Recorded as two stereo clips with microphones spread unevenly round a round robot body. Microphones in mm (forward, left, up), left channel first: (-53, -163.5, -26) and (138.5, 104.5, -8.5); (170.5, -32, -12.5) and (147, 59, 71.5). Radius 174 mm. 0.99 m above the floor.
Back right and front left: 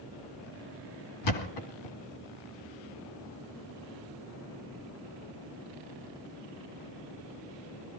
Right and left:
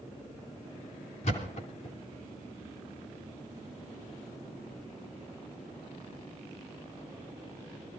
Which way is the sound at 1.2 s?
125° right.